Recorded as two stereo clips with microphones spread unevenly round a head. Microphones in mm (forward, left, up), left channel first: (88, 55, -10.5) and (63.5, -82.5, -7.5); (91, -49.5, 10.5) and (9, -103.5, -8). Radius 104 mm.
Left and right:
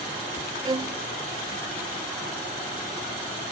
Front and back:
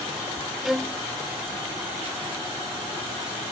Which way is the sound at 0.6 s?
85° right.